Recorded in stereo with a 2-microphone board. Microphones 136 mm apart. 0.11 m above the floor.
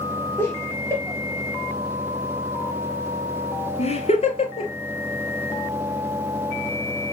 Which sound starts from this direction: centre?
Laughter, at 0.4 s.